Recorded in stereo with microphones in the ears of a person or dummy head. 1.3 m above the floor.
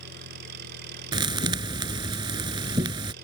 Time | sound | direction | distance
0.0 | an engine running | 60° right (ahead or behind) | ?
1.1 | a thud | 25° right (ahead or behind) | ?